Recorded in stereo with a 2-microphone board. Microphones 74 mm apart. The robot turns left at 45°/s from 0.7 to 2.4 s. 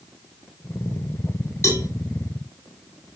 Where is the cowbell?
30° left (ahead or behind), 2.5 m; by 1.9 s 45° left (ahead or behind), 2.5 m.